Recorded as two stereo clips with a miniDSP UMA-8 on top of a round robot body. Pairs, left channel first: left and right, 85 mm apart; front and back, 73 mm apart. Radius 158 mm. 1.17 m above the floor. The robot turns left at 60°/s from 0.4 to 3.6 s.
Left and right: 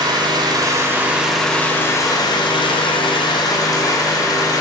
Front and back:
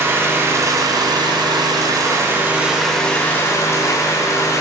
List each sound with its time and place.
0.0 s an engine running: 125° right, 1.1 m; by 4.6 s 45° left, 1.1 m